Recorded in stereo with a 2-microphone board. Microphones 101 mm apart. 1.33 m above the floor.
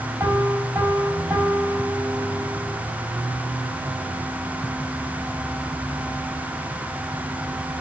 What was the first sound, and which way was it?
A piano, 25° right (ahead or behind).